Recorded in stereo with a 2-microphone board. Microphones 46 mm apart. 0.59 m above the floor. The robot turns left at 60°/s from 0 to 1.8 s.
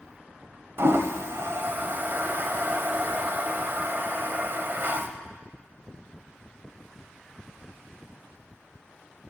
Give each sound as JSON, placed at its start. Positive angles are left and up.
{"t": 0.8, "sound": "a toilet flushing", "side_deg": -60, "distance_m": 0.6}